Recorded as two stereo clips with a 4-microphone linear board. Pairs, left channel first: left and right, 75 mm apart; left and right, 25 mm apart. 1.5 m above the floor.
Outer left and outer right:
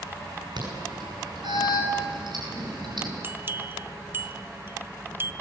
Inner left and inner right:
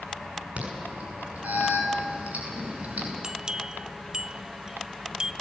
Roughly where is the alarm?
Right.